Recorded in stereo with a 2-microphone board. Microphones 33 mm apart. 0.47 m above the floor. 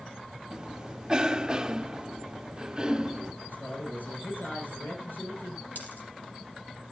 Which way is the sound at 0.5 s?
25° right (ahead or behind).